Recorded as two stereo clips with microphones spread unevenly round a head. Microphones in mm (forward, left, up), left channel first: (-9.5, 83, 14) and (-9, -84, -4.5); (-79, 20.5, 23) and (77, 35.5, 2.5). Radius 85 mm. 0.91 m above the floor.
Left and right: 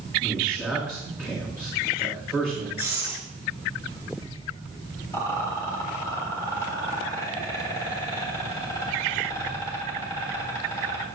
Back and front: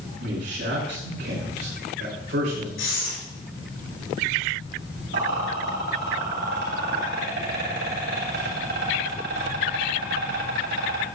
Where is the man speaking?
5° left, 4 m.